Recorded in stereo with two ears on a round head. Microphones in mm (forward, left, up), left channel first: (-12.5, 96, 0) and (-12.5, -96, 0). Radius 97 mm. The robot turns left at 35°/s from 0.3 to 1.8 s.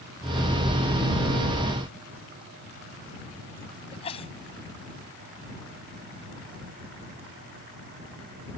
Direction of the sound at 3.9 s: 25° left (ahead or behind).